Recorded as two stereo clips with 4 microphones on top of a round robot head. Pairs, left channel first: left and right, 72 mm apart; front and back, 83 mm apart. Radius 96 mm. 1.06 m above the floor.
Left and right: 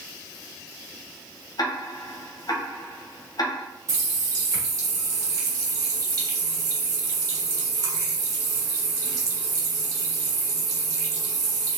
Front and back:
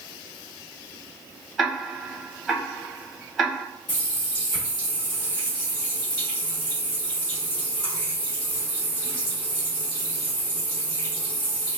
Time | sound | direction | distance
1.6 | ticking | 90° left | 1.3 m
3.9 | a running tap | 50° right | 1.7 m